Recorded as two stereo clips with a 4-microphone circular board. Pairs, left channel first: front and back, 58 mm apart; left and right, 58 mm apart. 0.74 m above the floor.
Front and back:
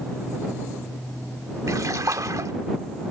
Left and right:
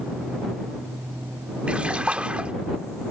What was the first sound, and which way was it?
A splash, 160° right.